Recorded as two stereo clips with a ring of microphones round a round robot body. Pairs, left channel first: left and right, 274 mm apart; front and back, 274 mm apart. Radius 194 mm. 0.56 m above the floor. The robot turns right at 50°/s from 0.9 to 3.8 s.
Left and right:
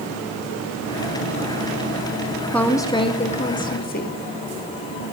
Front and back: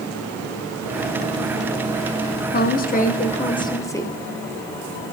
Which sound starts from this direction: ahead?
A woman speaking, at 2.5 s.